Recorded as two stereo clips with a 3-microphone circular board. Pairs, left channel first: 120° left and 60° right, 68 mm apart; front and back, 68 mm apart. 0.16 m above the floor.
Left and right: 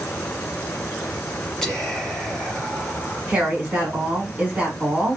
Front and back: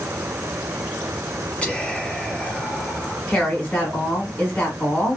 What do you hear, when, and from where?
1.6 s whispering: 45° left, 1.1 m
3.3 s a woman speaking: 25° right, 1.4 m